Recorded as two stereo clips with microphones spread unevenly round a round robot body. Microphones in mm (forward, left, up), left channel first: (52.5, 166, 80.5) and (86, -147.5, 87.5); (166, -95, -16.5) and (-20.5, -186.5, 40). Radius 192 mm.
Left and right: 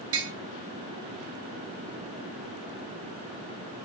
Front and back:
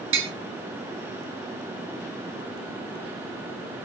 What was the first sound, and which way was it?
Tapping, 140° right.